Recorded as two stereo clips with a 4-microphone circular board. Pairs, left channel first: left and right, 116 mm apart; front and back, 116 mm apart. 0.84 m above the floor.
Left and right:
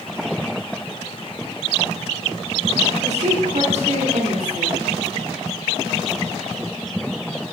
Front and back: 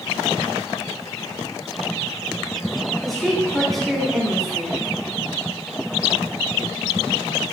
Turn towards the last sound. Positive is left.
turn(degrees=-90)